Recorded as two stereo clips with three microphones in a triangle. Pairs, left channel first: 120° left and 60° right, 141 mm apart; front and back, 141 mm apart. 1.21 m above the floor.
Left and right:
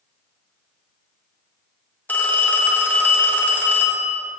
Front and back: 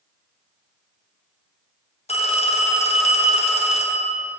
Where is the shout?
No shout in this recording.